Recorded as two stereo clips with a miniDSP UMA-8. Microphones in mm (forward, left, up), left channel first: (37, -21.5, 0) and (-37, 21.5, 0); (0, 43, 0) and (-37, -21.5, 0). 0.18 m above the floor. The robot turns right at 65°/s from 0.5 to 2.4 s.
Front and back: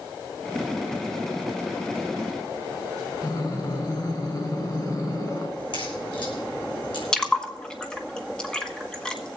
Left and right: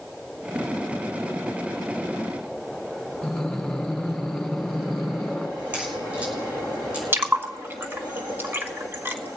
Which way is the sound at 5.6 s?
50° right.